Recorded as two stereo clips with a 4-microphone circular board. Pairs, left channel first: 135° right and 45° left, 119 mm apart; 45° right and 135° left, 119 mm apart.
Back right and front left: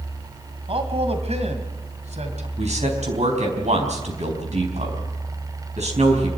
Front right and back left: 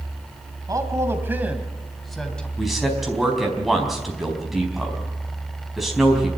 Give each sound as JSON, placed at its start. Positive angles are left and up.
{"t": 0.7, "sound": "a man speaking", "azimuth_deg": 80, "distance_m": 2.5}
{"t": 2.6, "sound": "a man speaking", "azimuth_deg": 45, "distance_m": 4.5}